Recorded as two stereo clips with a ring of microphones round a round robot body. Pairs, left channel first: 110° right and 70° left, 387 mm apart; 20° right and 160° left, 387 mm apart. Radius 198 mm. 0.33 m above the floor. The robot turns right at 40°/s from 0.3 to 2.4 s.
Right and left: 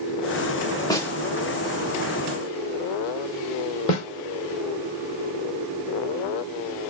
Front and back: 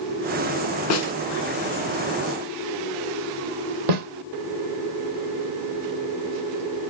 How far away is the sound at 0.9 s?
About 0.9 m.